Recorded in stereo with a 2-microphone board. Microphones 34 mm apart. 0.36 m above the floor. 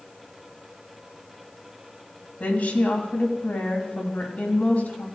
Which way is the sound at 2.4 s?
55° left (ahead or behind).